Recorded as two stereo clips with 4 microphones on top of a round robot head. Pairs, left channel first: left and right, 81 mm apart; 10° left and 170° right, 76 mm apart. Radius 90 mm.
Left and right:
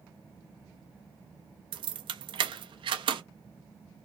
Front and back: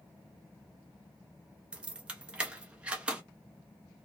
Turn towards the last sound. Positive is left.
turn(degrees=-95)